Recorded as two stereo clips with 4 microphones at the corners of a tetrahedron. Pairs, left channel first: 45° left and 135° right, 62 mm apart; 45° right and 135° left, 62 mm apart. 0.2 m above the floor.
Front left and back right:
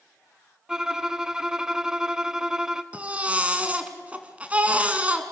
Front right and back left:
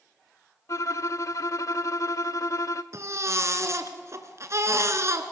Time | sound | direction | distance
0.7 | a violin | 55° right | 0.6 m
2.9 | a baby crying | 160° left | 1.7 m